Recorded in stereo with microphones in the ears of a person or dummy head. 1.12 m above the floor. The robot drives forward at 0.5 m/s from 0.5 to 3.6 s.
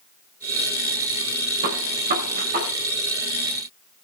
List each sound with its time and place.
1.6 s a gunshot: 45° right (ahead or behind), 3.5 m; by 2.7 s 40° right (ahead or behind), 4 m